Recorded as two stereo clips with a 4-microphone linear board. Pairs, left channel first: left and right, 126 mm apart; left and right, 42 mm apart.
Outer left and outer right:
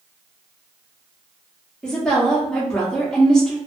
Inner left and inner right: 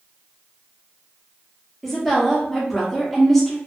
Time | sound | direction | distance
1.8 | a woman speaking | 5° left (ahead or behind) | 0.9 m